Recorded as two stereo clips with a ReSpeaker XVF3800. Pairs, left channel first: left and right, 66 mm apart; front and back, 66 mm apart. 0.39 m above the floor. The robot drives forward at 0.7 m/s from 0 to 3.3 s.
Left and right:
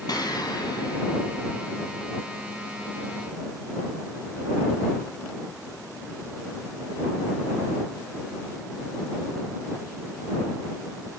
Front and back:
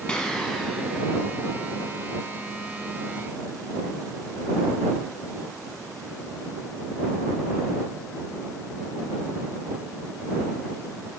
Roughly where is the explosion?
Left.